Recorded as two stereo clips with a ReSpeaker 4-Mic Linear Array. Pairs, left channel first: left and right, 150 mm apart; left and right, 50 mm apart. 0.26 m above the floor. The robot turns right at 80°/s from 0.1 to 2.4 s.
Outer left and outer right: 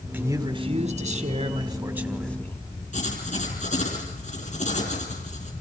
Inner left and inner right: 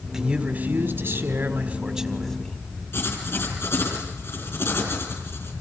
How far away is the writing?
About 5.5 m.